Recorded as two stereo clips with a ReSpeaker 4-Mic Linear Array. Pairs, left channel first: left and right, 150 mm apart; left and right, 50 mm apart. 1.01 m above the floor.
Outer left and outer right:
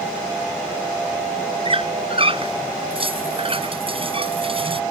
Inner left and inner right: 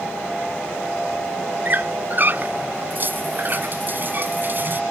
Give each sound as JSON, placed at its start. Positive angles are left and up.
{"t": 1.6, "sound": "a squeak", "side_deg": -40}